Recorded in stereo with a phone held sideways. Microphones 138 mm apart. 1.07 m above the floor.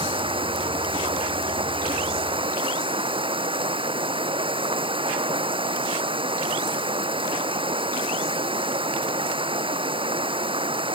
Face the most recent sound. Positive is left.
turn(degrees=-40)  # may be behind; listen again after turning